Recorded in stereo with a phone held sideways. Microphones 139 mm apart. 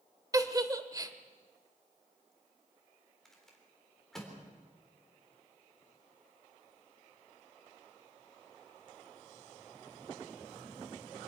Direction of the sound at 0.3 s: 25° right (ahead or behind).